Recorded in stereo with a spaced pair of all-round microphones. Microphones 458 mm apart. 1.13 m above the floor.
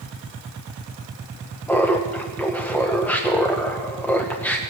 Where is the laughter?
5° left (ahead or behind), 0.8 m.